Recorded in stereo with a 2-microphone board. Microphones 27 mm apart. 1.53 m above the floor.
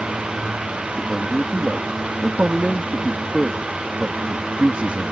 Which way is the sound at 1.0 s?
50° right (ahead or behind).